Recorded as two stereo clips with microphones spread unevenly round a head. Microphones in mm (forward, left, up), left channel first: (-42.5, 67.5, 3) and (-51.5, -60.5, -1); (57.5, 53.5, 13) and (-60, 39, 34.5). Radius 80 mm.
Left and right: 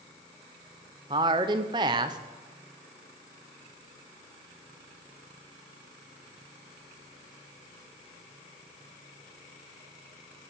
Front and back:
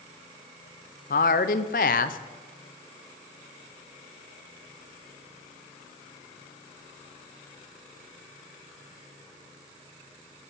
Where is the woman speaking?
30° right, 0.5 m.